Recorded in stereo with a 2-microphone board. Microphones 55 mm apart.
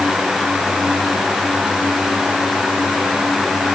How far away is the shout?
No shout in this recording.